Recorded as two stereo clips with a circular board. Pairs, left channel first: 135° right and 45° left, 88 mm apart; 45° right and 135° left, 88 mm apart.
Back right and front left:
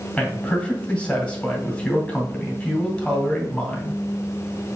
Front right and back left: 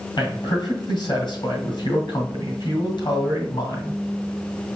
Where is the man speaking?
55° right, 2.5 m.